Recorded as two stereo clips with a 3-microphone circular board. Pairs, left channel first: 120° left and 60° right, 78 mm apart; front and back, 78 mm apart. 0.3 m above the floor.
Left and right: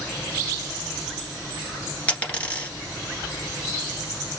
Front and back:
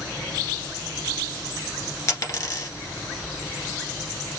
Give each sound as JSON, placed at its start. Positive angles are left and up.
{"t": 2.1, "sound": "a dropped coin", "azimuth_deg": 50, "distance_m": 1.5}